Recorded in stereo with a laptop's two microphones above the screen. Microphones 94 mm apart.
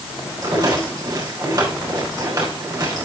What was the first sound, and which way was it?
A rattle, 40° right (ahead or behind).